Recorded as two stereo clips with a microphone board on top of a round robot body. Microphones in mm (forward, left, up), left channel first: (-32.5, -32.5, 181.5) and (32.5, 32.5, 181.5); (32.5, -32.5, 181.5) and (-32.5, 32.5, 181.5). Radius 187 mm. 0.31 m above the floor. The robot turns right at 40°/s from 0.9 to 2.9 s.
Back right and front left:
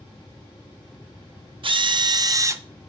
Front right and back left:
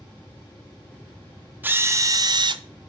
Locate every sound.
1.6 s a drill: 65° left, 0.6 m; by 2.6 s 105° left, 0.6 m